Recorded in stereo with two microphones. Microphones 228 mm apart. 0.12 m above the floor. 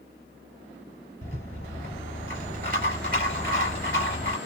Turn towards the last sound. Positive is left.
turn(degrees=-45)  # may be behind; listen again after turning